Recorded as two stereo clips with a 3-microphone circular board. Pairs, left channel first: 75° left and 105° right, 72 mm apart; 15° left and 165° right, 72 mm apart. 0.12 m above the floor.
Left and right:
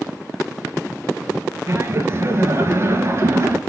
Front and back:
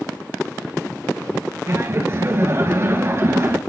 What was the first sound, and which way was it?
Laughter, 135° right.